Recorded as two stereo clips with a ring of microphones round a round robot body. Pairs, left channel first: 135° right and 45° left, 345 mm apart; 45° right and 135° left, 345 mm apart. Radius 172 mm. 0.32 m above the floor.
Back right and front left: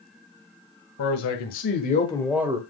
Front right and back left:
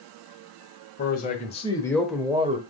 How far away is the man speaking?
About 1.9 m.